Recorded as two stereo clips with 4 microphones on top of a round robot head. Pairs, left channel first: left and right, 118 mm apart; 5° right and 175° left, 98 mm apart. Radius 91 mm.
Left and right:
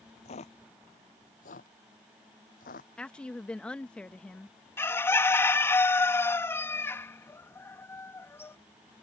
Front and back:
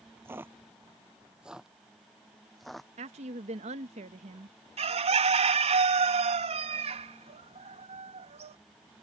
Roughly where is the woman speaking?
Behind.